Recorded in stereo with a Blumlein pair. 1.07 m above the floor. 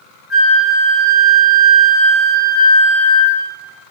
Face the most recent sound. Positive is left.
turn(degrees=25)